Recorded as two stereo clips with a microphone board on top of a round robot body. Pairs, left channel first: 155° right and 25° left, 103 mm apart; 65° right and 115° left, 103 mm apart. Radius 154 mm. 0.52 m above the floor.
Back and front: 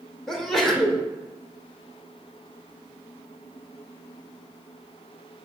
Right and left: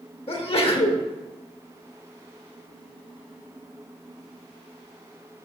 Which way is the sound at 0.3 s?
70° right.